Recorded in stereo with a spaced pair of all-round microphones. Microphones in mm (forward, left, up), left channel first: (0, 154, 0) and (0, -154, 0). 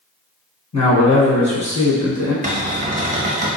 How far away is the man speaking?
About 1.0 m.